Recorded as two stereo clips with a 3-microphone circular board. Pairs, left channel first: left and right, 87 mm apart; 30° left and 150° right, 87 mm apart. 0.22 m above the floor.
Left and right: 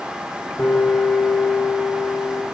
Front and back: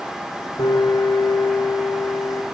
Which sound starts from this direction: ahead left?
A piano, at 0.6 s.